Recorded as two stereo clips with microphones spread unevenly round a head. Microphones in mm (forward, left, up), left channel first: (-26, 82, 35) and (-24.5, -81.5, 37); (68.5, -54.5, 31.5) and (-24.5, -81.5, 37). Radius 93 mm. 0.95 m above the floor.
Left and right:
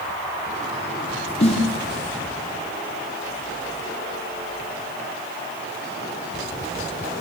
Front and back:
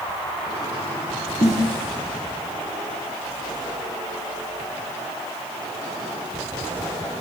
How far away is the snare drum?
About 4.5 m.